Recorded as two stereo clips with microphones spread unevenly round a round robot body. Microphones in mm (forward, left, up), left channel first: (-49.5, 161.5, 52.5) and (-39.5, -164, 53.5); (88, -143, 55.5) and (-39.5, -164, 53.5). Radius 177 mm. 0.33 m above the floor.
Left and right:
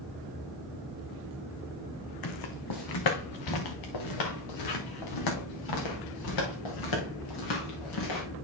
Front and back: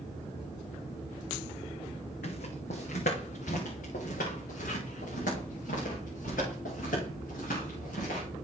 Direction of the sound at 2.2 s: 60° left.